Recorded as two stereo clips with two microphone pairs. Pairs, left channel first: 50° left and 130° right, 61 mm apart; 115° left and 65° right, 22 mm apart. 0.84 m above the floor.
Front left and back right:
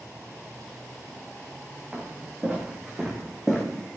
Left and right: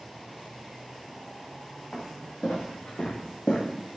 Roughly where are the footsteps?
Behind.